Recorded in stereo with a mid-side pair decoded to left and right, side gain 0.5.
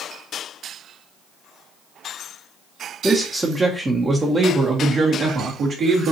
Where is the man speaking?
5° right, 1.0 m; by 6.1 s 60° right, 2.0 m.